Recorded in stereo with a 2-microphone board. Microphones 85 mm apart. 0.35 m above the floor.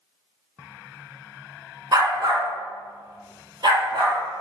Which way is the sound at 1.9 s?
50° right (ahead or behind).